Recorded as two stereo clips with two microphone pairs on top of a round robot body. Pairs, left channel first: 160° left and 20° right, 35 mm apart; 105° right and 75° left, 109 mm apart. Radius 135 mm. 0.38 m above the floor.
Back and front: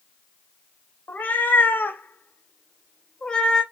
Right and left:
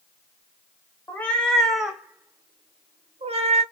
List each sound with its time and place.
1.1 s a cat meowing: 175° right, 1.0 m; by 3.6 s 95° left, 0.9 m